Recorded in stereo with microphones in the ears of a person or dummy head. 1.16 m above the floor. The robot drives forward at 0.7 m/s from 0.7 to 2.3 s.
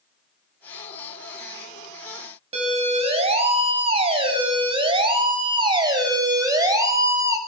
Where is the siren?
30° right (ahead or behind), 9.5 m; by 7.4 s 10° right (ahead or behind), 7 m.